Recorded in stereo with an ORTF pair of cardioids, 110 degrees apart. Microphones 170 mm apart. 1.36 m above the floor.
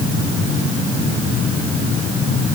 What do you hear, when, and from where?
Only background noise.